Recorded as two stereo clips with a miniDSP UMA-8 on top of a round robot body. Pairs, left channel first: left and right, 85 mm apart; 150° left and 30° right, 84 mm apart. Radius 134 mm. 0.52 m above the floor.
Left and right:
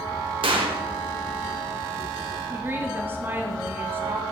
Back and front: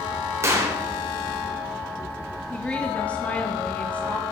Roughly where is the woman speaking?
Behind right.